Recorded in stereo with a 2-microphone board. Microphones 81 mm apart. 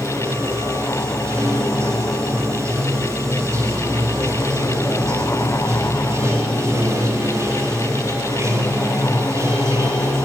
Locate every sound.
0.0 s running water: 40° right (ahead or behind), 2 m